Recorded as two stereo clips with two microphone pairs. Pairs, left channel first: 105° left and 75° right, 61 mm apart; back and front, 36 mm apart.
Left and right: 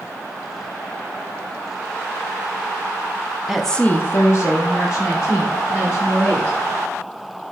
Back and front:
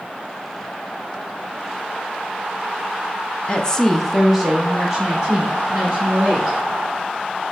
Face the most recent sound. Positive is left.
turn(degrees=70)